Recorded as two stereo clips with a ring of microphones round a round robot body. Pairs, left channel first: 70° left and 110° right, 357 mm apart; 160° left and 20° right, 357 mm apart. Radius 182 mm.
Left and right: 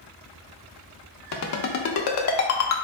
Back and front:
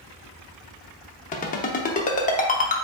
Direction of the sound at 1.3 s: 95° left.